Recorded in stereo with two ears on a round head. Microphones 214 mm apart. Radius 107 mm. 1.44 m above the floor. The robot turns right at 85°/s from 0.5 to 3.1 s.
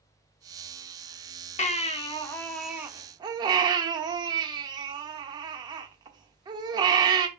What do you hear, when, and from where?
1.6 s a baby crying: 30° left (ahead or behind), 1.1 m; by 7.3 s 20° right (ahead or behind), 1.1 m